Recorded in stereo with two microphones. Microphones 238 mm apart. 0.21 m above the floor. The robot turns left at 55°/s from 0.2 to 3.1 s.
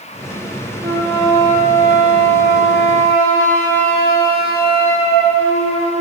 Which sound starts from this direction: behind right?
A flute, at 0.8 s.